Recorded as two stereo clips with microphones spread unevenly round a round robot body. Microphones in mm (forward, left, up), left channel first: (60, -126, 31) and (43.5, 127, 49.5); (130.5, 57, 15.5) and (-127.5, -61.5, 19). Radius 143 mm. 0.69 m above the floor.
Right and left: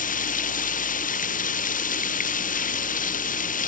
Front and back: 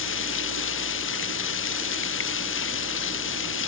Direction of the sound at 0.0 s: 25° right.